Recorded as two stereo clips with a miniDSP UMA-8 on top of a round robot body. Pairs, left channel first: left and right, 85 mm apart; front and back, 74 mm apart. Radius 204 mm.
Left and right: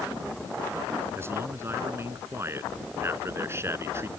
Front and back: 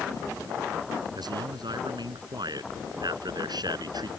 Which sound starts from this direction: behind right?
A man speaking, at 1.1 s.